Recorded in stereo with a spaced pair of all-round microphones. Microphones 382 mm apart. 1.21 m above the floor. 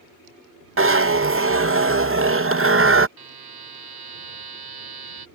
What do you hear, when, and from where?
0.8 s a zipper: 35° right (ahead or behind)
3.2 s a buzzer: 75° right (ahead or behind)